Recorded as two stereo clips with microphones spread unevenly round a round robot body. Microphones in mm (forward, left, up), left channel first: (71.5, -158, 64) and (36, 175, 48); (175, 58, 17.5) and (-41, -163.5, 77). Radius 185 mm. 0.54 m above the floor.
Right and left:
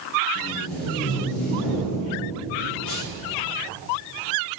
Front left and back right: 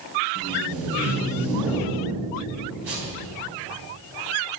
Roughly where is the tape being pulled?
Behind.